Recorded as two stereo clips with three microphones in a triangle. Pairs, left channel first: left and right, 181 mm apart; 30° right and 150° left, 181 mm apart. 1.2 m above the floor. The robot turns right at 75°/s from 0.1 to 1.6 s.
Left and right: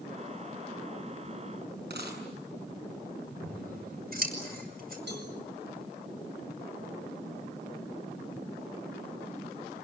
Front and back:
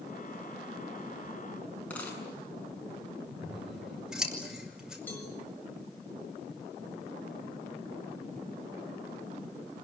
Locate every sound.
1.9 s a dropped coin: 110° right, 7.5 m
3.4 s scissors: 125° right, 5.5 m
5.1 s a cowbell: 110° right, 6.5 m